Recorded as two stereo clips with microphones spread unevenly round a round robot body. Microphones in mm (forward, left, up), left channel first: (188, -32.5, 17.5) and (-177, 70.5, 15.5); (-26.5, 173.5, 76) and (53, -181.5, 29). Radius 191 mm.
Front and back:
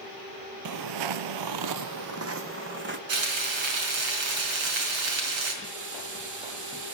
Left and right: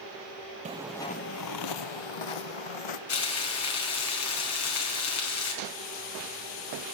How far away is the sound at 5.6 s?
About 3.5 m.